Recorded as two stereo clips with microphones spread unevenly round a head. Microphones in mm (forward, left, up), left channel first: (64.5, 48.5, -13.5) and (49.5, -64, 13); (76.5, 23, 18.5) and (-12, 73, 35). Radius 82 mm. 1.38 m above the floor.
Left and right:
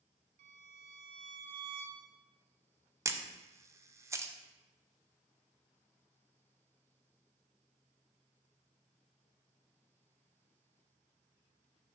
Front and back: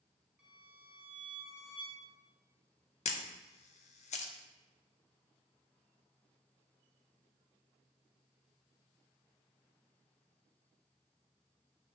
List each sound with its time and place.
0.4 s a violin: 130° right, 0.5 m
3.0 s a camera shutter: 35° right, 0.7 m